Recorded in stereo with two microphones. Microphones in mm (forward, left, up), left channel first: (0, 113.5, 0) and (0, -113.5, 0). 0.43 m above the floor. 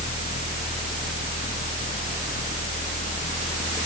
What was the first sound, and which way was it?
Only background noise.